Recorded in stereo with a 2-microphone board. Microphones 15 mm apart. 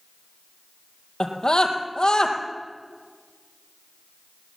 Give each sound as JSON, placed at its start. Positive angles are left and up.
{"t": 1.2, "sound": "a scream", "side_deg": 60, "distance_m": 3.5}